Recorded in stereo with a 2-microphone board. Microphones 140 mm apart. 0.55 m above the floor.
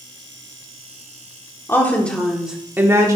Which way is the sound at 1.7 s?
20° left (ahead or behind).